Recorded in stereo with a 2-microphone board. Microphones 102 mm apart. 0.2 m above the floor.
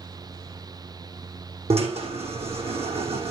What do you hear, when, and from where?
1.7 s a drill: 85° right, 6.5 m